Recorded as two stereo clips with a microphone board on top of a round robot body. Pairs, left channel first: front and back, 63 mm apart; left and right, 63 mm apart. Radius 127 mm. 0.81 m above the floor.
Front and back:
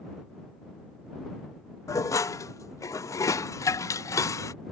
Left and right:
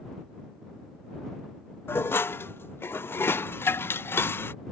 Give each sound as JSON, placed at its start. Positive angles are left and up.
{"t": 1.9, "sound": "dishes clattering", "azimuth_deg": 35}